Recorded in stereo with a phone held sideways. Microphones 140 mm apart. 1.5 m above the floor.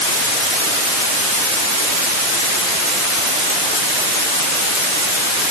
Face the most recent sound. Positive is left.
No sound to turn to.